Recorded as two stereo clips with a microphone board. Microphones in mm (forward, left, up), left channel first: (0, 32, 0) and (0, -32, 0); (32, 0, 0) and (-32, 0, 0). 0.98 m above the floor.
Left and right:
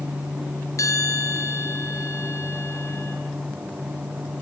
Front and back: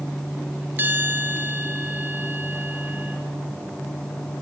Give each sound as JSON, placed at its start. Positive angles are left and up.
{"t": 0.8, "sound": "a bell", "azimuth_deg": 125, "distance_m": 4.5}